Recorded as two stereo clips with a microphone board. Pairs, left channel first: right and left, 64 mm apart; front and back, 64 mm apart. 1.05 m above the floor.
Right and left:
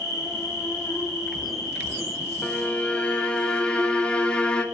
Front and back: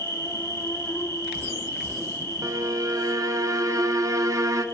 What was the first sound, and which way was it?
An insect, 55° right.